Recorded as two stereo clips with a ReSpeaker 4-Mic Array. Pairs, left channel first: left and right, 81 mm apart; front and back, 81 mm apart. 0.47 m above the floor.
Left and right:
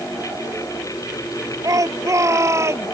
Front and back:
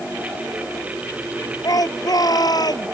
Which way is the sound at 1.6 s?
45° right.